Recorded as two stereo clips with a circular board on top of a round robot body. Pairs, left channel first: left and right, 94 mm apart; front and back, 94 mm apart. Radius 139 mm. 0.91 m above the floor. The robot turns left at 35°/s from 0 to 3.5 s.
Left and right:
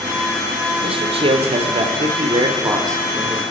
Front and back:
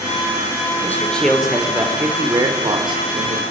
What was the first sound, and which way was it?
A man speaking, 70° right.